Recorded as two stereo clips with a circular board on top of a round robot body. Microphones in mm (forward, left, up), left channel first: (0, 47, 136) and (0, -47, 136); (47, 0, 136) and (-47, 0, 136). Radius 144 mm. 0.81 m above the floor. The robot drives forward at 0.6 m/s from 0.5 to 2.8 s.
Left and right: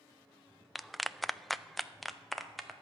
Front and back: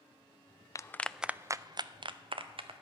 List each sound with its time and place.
0.8 s a clap: straight ahead, 0.5 m; by 2.7 s straight behind, 1.1 m